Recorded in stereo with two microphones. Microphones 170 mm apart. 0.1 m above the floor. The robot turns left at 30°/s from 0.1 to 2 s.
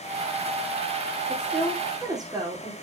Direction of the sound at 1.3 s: Centre (ahead or behind).